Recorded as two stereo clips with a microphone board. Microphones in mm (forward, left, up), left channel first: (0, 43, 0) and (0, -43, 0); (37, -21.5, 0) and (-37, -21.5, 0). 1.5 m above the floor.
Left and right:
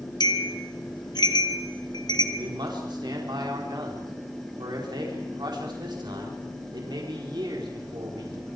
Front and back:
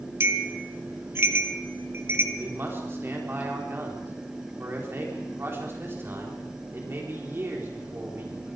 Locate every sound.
0.2 s a bell: 125° left, 1.5 m
2.4 s a man speaking: 125° right, 4 m